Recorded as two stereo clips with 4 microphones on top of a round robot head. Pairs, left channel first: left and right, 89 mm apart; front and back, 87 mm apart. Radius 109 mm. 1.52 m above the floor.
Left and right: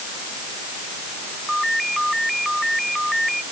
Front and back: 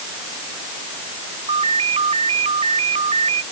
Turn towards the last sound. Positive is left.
turn(degrees=180)